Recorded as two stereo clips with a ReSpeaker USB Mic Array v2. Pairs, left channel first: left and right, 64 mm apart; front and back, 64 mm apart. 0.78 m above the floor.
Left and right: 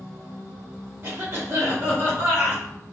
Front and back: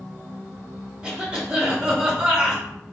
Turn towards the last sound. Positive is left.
turn(degrees=-110)